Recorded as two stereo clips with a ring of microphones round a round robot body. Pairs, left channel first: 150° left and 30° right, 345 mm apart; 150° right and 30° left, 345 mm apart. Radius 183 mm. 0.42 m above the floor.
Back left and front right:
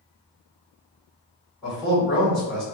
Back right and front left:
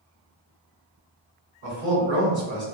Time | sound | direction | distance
1.6 | a man speaking | 50° left | 1.6 m